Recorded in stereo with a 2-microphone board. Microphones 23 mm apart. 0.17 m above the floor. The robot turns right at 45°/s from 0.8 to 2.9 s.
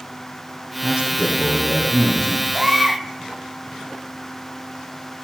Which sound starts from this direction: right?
A baby crying, at 2.5 s.